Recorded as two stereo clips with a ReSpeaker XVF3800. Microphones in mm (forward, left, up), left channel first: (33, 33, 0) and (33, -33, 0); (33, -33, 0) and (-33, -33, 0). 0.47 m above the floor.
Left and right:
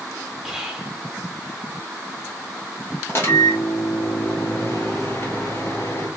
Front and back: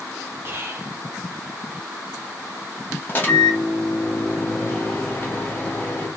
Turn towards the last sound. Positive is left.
turn(degrees=50)